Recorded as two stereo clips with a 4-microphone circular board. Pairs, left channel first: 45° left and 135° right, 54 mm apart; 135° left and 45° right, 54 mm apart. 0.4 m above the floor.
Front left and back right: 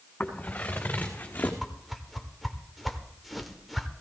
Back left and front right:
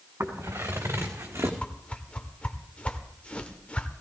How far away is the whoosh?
About 1.1 m.